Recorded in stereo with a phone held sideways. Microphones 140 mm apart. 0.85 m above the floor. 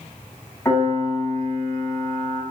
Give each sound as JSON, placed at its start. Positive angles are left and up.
{"t": 0.7, "sound": "a piano", "side_deg": 20, "distance_m": 1.3}